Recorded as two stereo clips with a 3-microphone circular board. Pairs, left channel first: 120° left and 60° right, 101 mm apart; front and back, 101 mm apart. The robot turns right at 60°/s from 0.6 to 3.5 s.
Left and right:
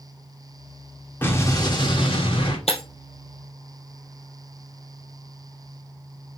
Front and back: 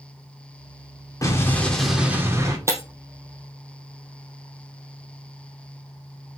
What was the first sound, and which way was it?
An explosion, 50° left.